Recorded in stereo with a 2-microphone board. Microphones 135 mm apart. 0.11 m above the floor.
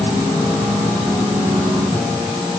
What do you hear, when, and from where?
Only background noise.